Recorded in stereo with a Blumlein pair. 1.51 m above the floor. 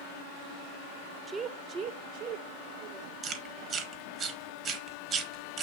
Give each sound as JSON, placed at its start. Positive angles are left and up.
{"t": 1.3, "sound": "a woman speaking", "azimuth_deg": -10, "distance_m": 0.5}
{"t": 3.2, "sound": "chewing", "azimuth_deg": -30, "distance_m": 1.2}